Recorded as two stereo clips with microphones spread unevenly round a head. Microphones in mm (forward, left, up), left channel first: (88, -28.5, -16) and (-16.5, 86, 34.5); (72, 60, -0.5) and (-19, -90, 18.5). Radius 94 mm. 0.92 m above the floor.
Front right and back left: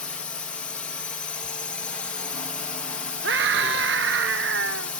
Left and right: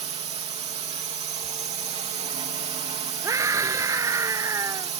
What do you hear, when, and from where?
0.0 s a drone: 90° right
3.2 s a scream: 165° left